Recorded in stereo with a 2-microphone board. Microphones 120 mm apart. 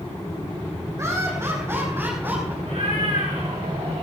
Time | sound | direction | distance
1.0 | laughter | 25° right (ahead or behind) | 6 m
2.6 | a cat meowing | 65° right (ahead or behind) | 5.5 m